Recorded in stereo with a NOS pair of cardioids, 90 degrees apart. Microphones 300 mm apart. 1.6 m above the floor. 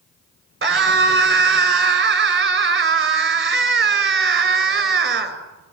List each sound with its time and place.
0.6 s a scream: 40° right, 7 m